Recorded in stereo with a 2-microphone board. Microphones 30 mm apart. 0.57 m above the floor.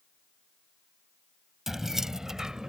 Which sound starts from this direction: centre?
Keys jangling, at 1.7 s.